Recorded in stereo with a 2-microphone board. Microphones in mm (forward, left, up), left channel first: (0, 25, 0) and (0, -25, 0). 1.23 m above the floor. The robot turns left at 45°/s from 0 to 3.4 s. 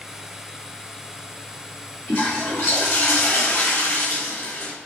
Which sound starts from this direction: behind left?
A toilet flushing, at 2.1 s.